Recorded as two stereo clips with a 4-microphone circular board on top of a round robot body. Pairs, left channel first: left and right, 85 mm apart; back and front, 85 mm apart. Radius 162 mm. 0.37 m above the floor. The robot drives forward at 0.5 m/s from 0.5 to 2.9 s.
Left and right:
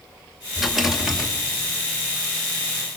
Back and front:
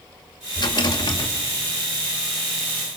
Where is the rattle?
175° right, 2 m.